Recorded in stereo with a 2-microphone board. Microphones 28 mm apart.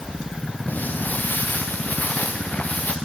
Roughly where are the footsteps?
Left.